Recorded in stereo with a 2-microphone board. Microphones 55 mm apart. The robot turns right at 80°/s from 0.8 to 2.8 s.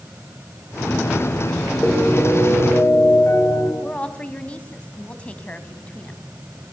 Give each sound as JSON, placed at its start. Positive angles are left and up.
{"t": 1.8, "sound": "a piano", "azimuth_deg": -5, "distance_m": 5.5}
{"t": 3.8, "sound": "a woman speaking", "side_deg": 20, "distance_m": 2.5}